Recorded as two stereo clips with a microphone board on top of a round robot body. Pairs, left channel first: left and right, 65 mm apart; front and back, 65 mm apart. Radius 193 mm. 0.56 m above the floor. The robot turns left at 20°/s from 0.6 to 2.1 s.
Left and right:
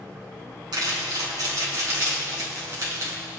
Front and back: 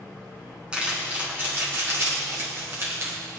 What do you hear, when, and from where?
0.7 s crumpling: 105° right, 5.5 m; by 3.2 s 135° right, 5.5 m